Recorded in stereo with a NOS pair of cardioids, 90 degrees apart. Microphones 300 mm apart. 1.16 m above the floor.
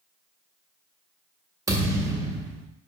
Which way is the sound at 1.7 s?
10° right.